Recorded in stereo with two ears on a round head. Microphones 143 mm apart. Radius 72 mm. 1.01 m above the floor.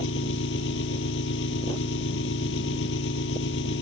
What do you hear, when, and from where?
0.0 s an engine running: 85° left